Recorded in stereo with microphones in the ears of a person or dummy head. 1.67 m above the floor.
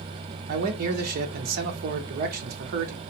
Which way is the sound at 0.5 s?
50° right (ahead or behind).